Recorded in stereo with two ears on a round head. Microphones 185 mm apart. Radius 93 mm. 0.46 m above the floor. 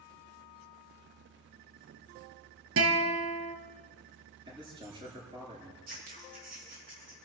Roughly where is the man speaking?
Right.